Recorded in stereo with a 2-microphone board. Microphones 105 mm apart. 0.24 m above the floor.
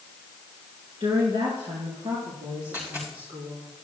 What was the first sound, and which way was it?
A woman speaking, 55° right (ahead or behind).